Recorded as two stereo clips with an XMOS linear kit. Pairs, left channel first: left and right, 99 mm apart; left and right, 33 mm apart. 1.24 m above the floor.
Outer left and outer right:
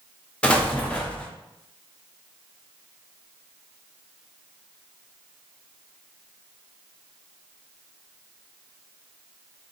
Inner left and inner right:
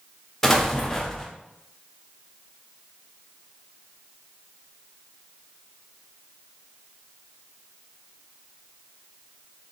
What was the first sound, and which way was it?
An explosion, 10° left (ahead or behind).